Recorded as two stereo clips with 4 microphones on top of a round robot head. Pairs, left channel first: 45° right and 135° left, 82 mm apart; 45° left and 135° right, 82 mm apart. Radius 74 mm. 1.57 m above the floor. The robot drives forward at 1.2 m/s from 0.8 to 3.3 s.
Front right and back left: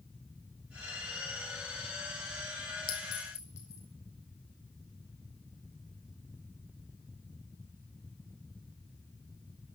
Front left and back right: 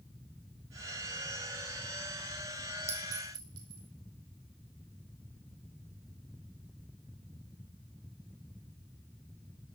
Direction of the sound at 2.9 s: 80° right.